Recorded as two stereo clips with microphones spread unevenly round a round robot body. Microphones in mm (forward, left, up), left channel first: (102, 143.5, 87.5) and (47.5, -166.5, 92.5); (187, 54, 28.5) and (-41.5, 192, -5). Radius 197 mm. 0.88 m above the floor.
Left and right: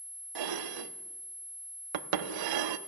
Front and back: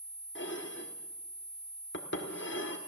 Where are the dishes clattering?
95° right, 1.0 m.